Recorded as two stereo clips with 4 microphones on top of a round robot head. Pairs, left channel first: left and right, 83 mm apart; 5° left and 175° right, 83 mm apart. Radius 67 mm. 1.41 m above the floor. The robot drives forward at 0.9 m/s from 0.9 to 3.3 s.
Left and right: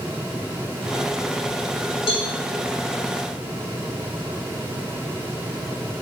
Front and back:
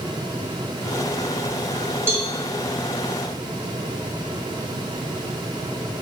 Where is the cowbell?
125° left, 1.9 m; by 2.3 s 130° left, 2 m.